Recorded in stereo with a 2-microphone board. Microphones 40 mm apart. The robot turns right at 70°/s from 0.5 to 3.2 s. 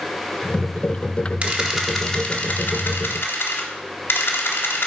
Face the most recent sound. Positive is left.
turn(degrees=90)